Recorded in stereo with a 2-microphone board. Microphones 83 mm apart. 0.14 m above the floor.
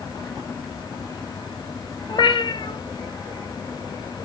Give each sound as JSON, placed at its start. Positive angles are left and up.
{"t": 2.1, "sound": "a cat meowing", "side_deg": 65, "distance_m": 0.8}